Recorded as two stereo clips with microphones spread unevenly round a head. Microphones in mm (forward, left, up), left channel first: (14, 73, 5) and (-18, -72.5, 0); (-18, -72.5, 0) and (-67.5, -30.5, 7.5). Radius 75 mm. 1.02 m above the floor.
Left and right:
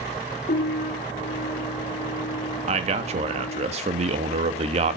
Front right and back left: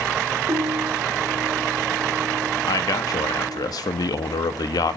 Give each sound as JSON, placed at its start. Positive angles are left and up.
{"t": 0.5, "sound": "a piano", "azimuth_deg": 110, "distance_m": 1.4}
{"t": 2.7, "sound": "a man speaking", "azimuth_deg": -55, "distance_m": 1.5}